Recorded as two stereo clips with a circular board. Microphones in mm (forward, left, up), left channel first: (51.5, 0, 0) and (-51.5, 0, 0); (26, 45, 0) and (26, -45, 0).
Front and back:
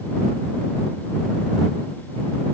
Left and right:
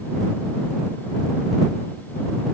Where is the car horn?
I don't hear a car horn.